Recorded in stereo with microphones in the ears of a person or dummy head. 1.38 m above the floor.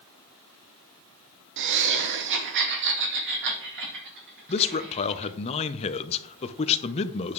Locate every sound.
1.6 s laughter: 55° right (ahead or behind), 0.7 m
4.5 s a man speaking: 35° left (ahead or behind), 0.7 m